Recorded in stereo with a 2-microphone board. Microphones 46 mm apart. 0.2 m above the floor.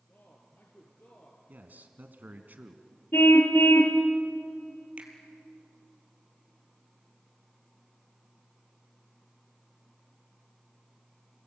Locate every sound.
0.1 s a man speaking: 40° left (ahead or behind), 3.5 m
1.5 s a man speaking: 40° right (ahead or behind), 1.9 m
3.1 s a car horn: 60° left (ahead or behind), 2.5 m
5.0 s a finger snap: 25° right (ahead or behind), 3.5 m